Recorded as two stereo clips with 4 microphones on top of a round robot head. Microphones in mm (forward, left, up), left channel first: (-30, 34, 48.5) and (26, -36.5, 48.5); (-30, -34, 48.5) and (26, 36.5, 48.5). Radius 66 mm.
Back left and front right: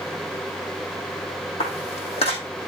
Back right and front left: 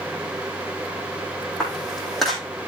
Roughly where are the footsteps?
Behind left.